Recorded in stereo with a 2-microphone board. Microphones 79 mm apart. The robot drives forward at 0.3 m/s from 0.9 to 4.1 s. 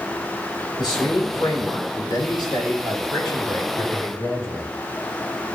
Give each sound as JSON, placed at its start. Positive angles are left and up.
{"t": 0.8, "sound": "a man speaking", "side_deg": 75, "distance_m": 4.0}